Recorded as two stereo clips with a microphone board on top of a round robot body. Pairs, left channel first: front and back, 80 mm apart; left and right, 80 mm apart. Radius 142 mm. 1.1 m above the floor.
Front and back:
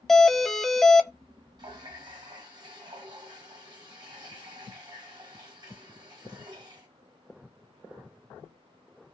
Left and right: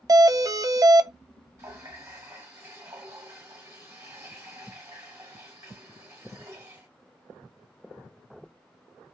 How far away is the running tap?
About 1.6 m.